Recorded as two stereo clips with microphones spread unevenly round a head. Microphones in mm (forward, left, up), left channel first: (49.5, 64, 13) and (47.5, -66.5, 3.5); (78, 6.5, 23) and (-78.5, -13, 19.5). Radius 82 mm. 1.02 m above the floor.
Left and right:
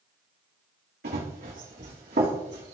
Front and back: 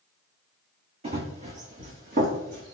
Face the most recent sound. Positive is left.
turn(degrees=-140)